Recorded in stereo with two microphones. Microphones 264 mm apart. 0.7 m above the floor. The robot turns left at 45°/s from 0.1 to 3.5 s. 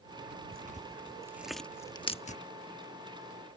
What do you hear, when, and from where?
0.5 s tearing paper: 35° right (ahead or behind); by 2.4 s 30° left (ahead or behind)